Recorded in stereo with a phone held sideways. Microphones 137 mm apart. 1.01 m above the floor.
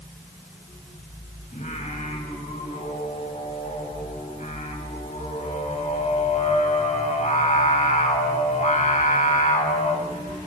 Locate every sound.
1.5 s singing: 65° left (ahead or behind), 5.5 m